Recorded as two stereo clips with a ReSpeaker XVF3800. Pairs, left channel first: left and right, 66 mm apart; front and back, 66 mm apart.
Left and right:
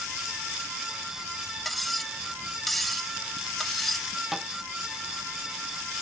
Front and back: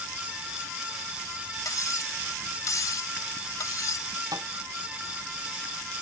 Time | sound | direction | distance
1.6 | cutlery clinking | 5° left | ?
4.3 | a thud | 175° right | ?